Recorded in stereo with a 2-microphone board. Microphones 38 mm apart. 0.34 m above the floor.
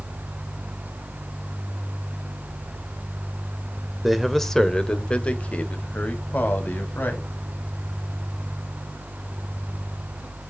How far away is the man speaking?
About 0.9 m.